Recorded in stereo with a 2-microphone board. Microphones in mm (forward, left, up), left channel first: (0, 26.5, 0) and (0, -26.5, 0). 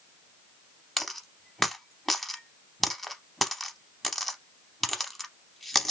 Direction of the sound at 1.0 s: Centre (ahead or behind).